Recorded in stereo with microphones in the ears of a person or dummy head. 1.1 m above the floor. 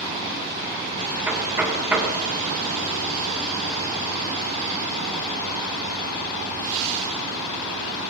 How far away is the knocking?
About 3.5 m.